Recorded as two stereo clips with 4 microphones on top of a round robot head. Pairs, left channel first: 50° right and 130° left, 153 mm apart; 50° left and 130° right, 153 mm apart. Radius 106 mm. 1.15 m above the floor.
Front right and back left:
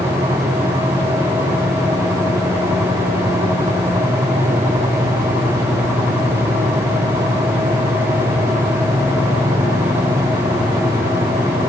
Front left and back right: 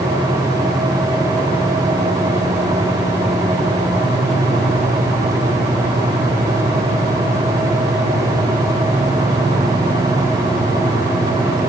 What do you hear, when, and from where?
Only background noise.